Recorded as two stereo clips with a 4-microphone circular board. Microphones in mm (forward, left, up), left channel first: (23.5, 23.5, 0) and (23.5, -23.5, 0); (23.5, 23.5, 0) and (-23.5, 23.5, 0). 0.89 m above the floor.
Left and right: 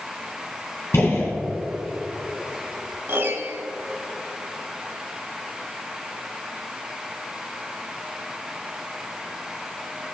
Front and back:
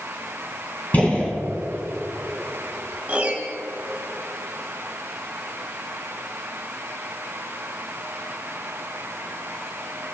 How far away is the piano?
About 2.0 m.